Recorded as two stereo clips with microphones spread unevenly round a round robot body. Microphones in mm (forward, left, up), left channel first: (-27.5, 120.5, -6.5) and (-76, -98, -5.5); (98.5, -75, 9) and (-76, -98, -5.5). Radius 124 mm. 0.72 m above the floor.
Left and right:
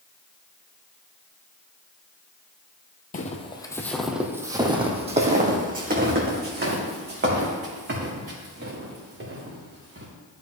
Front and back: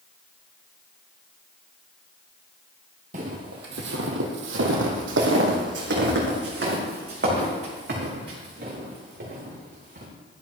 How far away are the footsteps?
About 1.3 m.